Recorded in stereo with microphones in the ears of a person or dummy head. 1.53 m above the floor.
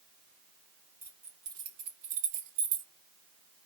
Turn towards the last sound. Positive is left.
turn(degrees=-45)  # may be behind; listen again after turning